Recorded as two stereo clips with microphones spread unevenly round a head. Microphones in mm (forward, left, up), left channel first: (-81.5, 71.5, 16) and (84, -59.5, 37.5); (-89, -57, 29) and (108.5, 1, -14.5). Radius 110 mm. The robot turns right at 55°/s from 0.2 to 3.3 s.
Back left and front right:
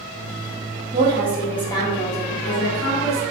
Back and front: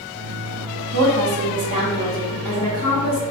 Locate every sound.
0.9 s a woman speaking: 25° left, 1.3 m; by 3.2 s 150° left, 1.3 m